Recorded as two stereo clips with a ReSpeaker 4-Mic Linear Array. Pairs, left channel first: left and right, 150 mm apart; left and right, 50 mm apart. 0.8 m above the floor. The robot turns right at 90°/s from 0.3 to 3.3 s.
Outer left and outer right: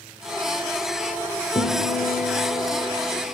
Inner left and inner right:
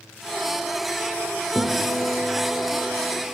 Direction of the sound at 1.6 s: 40° left.